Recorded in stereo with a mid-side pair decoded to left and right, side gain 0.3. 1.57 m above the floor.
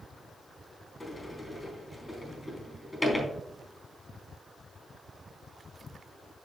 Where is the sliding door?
20° left, 3.5 m.